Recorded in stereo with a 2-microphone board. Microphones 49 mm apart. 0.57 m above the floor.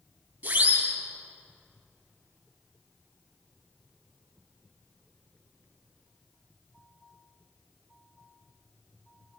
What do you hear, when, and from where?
0.4 s a siren: 35° right (ahead or behind), 9 m